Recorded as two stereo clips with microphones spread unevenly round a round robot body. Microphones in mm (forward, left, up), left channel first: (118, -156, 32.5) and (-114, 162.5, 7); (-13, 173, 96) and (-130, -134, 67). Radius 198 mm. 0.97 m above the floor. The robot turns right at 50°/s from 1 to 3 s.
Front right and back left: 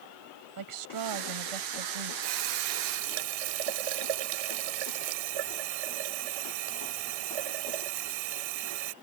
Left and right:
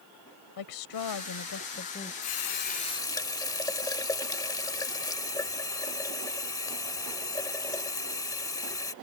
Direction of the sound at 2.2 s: 110° left.